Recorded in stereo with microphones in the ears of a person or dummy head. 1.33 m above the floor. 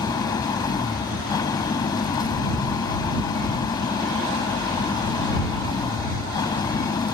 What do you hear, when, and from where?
0.0 s an engine running: 25° left (ahead or behind)